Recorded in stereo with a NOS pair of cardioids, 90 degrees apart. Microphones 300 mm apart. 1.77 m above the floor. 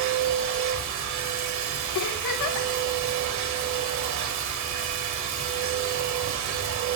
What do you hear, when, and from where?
0.0 s a machine running: 65° right, 1.5 m
1.9 s a giggle: 70° left, 3 m